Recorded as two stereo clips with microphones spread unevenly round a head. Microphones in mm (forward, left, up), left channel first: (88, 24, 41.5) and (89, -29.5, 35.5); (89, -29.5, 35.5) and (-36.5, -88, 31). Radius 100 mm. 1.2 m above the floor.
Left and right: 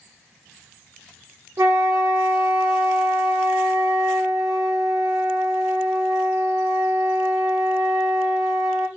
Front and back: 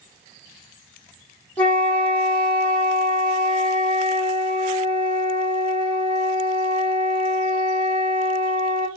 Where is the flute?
55° right, 1.5 m.